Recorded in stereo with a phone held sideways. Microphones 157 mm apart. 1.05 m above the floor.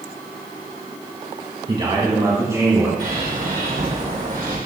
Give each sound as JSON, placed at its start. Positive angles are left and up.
{"t": 1.7, "sound": "a man speaking", "side_deg": -30, "distance_m": 1.5}
{"t": 3.0, "sound": "a bird", "side_deg": -70, "distance_m": 3.0}